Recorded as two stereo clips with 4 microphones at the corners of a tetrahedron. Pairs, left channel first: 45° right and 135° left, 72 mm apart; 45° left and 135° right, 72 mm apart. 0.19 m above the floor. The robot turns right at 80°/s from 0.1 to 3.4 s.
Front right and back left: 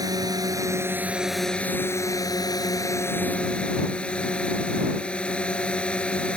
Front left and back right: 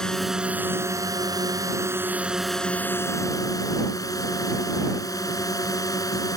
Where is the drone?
125° left; by 6.4 s 30° left.